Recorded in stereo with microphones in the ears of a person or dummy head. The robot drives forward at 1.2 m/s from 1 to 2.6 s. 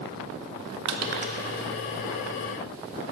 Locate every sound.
0.8 s crushing: 55° right (ahead or behind), 0.6 m; by 1.4 s 40° right (ahead or behind), 0.8 m